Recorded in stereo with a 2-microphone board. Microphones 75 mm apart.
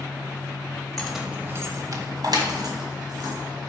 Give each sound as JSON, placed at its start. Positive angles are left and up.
{"t": 1.0, "sound": "keys jangling", "side_deg": 10, "distance_m": 1.1}